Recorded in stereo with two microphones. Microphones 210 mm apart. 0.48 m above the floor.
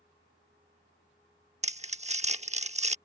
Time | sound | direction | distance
1.6 | crumpling | 35° right (ahead or behind) | ?